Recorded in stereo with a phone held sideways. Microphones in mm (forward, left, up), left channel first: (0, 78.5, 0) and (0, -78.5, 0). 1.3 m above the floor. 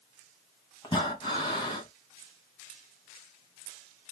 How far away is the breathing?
About 2 m.